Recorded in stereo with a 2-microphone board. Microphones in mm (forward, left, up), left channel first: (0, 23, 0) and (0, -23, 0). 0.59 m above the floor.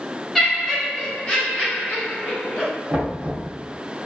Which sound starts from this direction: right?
Knocking, at 2.9 s.